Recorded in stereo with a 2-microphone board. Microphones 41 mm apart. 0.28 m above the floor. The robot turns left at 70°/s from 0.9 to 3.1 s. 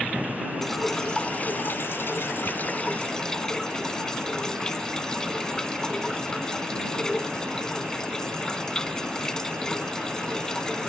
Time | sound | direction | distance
0.6 | dripping | 170° left | ?